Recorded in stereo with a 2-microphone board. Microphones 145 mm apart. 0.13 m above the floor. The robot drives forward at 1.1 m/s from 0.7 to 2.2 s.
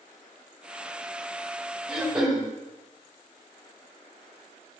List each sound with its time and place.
1.9 s throat clearing: 5° right (ahead or behind), 3.5 m